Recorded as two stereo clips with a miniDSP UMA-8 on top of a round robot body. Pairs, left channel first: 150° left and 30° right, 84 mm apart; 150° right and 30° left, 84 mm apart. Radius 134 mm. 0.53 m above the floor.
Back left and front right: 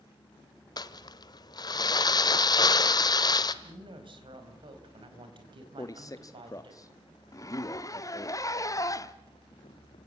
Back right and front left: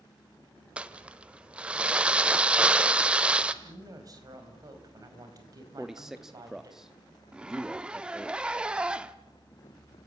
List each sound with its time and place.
0.8 s crumpling: 105° left, 0.9 m
3.6 s a woman speaking: 15° right, 4.5 m
5.8 s a man speaking: 115° left, 1.0 m
7.3 s a zipper: 105° left, 1.2 m